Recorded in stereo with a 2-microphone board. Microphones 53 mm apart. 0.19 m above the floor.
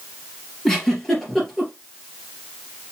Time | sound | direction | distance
0.7 | a giggle | 5° left (ahead or behind) | 2.5 m